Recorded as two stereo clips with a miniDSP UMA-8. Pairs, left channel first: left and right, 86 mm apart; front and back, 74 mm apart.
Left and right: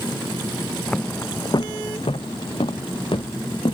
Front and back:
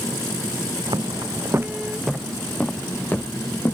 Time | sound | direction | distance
0.9 | footsteps | 170° left | ?